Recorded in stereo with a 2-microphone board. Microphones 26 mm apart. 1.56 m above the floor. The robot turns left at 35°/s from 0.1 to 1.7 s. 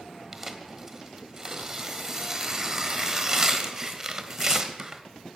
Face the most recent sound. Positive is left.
turn(degrees=-25)  # may be behind; listen again after turning